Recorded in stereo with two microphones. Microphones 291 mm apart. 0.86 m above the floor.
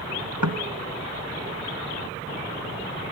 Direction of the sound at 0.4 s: 75° right (ahead or behind).